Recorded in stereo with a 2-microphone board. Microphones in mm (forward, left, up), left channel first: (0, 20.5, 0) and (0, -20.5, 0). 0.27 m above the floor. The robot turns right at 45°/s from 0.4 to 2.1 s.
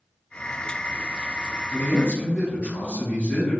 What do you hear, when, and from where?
1.7 s a man speaking: 15° left (ahead or behind), 1.6 m; by 3.6 s 25° left (ahead or behind), 1.6 m